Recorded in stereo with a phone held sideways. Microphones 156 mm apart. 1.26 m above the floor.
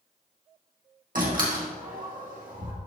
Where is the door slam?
60° right (ahead or behind), 1.8 m.